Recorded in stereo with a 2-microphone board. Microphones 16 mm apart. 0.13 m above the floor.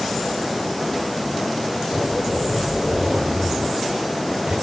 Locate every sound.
1.9 s a zipper: 80° right, 9 m